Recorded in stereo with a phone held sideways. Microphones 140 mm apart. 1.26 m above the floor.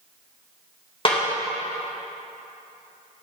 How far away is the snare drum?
About 1.5 m.